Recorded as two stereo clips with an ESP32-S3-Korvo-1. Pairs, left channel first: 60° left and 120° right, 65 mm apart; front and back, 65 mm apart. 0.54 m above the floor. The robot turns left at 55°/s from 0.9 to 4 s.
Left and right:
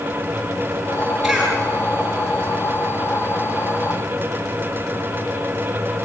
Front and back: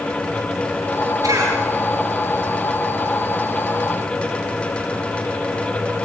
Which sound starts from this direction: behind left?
A cough, at 1.2 s.